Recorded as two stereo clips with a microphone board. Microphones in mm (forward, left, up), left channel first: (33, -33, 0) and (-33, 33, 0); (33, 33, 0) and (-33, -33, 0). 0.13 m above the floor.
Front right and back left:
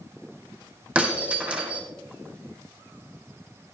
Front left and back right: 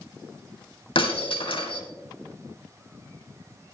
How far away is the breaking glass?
About 3 m.